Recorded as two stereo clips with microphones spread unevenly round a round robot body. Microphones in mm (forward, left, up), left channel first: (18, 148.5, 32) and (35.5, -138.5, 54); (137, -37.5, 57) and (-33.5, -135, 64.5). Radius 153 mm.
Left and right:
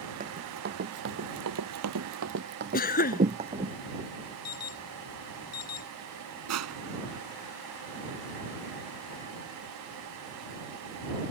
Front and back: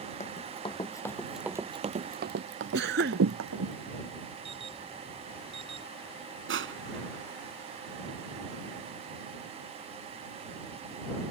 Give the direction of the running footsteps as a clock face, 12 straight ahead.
1 o'clock.